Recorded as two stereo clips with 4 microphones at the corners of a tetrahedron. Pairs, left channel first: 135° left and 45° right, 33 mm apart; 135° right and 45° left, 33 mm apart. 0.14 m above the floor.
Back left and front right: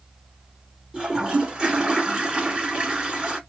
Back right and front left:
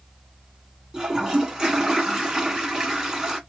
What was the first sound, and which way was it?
A toilet flushing, 5° right.